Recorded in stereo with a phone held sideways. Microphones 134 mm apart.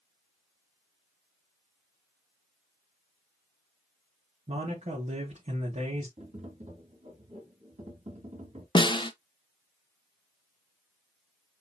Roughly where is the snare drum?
Left.